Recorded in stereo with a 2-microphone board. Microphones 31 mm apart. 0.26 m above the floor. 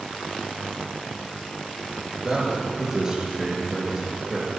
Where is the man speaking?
20° right (ahead or behind), 4.5 m.